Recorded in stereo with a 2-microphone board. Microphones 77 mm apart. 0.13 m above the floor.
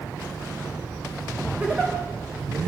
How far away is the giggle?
About 6.5 m.